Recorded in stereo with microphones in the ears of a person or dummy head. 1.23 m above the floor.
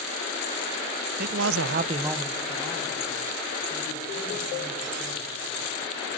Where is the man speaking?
55° right (ahead or behind), 0.8 m; by 5.7 s 15° left (ahead or behind), 6 m.